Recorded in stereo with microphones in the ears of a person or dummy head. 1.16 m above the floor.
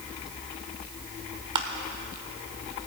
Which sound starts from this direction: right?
Crushing, at 1.6 s.